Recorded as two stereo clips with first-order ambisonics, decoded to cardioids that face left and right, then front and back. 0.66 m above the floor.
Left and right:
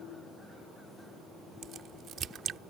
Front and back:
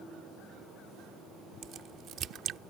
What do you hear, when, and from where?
1.6 s a crack: 135° right